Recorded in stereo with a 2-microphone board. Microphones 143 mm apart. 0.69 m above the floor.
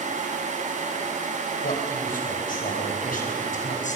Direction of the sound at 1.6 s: 75° left (ahead or behind).